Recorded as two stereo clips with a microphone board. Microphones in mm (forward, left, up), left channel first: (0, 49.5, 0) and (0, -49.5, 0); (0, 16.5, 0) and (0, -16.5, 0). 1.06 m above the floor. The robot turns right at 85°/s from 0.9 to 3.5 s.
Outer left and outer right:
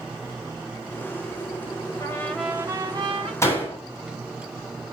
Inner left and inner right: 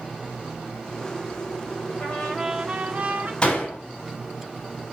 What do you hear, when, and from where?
2.0 s a trumpet: 145° left, 4 m; by 3.3 s 105° right, 4 m
3.4 s a door slam: 30° left (ahead or behind), 6.5 m; by 3.8 s 20° left (ahead or behind), 6.5 m